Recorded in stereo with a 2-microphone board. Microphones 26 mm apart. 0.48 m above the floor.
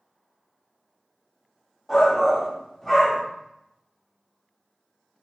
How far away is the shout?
About 0.7 m.